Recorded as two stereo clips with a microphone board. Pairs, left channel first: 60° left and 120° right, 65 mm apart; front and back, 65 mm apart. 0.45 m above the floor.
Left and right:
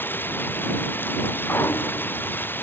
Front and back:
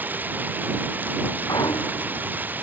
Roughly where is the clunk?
Ahead.